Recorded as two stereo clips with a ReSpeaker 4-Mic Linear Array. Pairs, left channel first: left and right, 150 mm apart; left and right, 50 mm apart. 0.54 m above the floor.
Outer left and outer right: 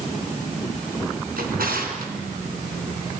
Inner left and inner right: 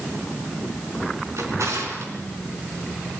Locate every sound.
1.4 s a drawer: 75° right (ahead or behind), 3.5 m